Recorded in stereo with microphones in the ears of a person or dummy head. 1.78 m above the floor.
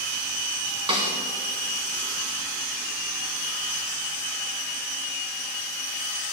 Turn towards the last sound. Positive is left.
turn(degrees=-25)  # may be behind; listen again after turning